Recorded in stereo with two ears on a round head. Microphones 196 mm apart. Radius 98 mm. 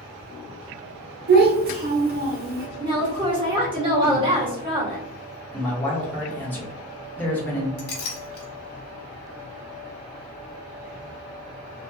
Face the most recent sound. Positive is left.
turn(degrees=45)  # may be behind; listen again after turning